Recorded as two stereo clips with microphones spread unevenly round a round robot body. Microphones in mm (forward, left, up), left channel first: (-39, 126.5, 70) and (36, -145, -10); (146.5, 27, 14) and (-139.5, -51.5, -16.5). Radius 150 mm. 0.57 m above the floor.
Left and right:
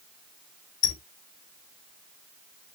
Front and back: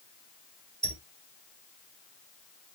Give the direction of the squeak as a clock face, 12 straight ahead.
8 o'clock.